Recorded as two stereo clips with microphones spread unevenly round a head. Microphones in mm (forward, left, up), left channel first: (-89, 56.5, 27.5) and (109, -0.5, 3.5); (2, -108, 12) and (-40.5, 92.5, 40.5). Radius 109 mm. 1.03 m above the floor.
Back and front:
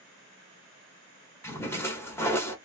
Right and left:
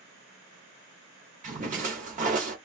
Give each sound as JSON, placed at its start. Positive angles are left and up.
{"t": 1.4, "sound": "a splash", "azimuth_deg": 100, "distance_m": 0.8}